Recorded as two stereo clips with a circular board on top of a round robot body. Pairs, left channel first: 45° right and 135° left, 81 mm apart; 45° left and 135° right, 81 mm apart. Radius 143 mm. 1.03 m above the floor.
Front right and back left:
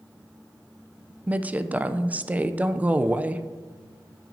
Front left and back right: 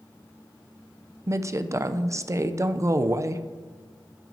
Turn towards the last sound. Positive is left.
turn(degrees=-160)